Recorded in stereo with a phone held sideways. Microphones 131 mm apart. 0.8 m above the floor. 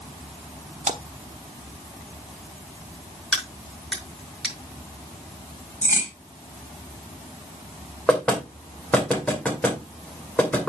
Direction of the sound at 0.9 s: 60° right (ahead or behind).